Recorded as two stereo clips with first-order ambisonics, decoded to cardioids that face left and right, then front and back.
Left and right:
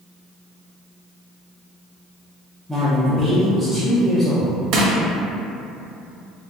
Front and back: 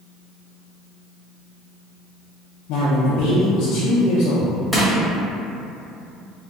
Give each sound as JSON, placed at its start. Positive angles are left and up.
{"t": 2.7, "sound": "a man speaking", "azimuth_deg": 5, "distance_m": 0.6}
{"t": 4.7, "sound": "crushing", "azimuth_deg": -85, "distance_m": 0.7}